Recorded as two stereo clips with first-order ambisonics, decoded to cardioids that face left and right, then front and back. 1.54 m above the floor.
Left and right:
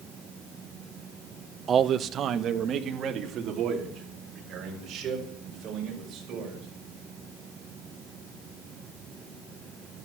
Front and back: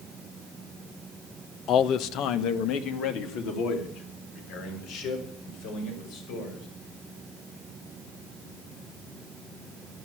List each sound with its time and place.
1.7 s a man speaking: 35° right, 0.6 m